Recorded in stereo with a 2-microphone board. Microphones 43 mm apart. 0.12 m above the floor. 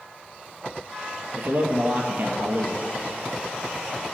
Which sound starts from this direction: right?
A man speaking, at 1.4 s.